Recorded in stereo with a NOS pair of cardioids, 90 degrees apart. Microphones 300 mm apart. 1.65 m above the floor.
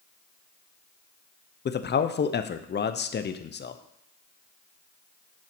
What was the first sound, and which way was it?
A man speaking, 35° left.